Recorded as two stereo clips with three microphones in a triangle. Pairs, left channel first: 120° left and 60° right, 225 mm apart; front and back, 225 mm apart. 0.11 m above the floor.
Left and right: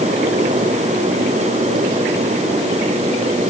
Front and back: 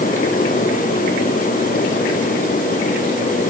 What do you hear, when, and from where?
Only background noise.